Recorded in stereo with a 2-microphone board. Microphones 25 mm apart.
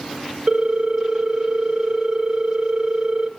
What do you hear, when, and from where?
0.5 s a ringtone: 40° right (ahead or behind), 1.1 m